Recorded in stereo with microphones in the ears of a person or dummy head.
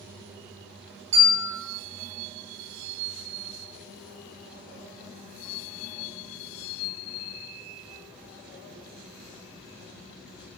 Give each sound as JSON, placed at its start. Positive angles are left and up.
{"t": 1.1, "sound": "a bell", "side_deg": -30, "distance_m": 2.5}